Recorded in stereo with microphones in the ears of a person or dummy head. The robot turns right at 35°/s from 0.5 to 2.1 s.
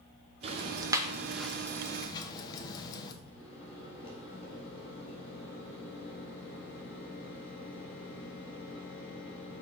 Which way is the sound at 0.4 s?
25° right (ahead or behind).